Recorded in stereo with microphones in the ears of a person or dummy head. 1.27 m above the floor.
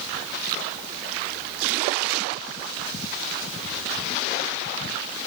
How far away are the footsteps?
I don't hear footsteps.